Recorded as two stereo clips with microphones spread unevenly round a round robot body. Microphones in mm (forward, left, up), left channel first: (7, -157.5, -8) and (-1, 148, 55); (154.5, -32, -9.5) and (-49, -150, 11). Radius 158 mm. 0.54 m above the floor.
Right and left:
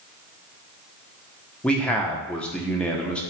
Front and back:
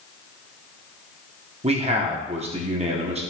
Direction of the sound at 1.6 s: 135° right.